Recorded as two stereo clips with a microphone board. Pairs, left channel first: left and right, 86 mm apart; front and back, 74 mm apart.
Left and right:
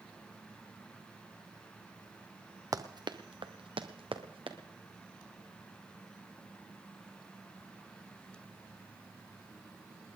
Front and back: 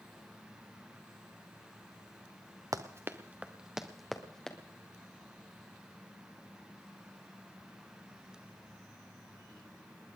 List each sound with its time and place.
2.7 s running footsteps: 140° right, 1.0 m; by 4.6 s 80° right, 2.0 m